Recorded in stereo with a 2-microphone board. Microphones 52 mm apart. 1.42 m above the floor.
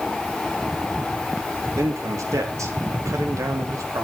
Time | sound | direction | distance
1.8 | a man speaking | 80° right | 3 m